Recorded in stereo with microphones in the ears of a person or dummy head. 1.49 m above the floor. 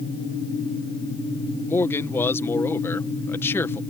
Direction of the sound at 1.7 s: 10° left (ahead or behind).